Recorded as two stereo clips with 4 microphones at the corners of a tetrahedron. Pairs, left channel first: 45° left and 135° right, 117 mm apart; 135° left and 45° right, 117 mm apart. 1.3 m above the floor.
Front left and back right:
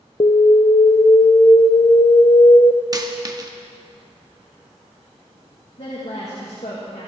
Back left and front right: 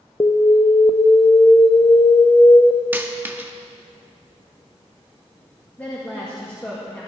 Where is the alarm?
80° left, 0.5 m.